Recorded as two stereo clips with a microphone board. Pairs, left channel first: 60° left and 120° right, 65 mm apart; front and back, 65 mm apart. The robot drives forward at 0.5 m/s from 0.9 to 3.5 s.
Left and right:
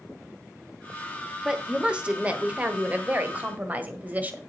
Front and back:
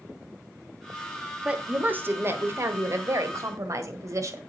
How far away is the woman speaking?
About 1.1 m.